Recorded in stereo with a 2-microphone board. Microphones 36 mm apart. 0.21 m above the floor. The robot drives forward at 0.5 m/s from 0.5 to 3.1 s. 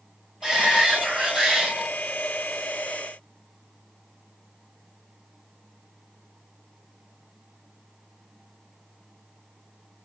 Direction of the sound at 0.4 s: 20° right (ahead or behind).